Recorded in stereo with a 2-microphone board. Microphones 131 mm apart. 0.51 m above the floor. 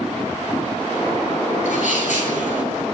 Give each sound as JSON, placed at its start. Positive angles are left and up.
{"t": 1.6, "sound": "a sneeze", "side_deg": 80, "distance_m": 9.5}